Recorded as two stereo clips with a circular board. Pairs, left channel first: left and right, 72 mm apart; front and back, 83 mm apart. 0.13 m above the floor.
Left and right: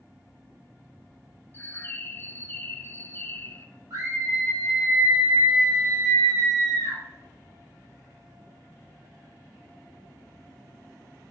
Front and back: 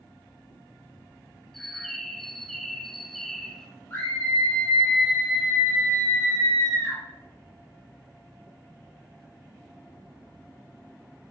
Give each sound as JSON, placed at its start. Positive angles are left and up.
{"t": 1.5, "sound": "a bird", "azimuth_deg": 85, "distance_m": 0.9}
{"t": 3.9, "sound": "a scream", "azimuth_deg": -60, "distance_m": 2.5}